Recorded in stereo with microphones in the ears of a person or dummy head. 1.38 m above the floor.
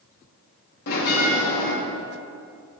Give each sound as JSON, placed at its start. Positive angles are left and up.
{"t": 0.9, "sound": "a bell", "side_deg": 60, "distance_m": 3.0}